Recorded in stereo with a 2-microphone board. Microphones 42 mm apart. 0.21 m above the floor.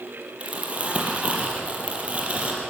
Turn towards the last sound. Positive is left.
turn(degrees=-30)  # may be behind; listen again after turning